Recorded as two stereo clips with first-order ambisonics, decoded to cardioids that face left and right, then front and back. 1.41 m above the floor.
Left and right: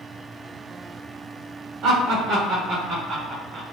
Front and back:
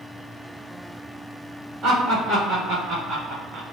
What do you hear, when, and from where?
1.8 s laughter: 130° right, 1.9 m; by 3.7 s 160° right, 0.6 m